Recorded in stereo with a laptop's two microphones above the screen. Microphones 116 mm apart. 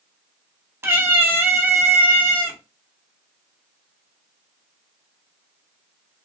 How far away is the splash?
I don't hear a splash.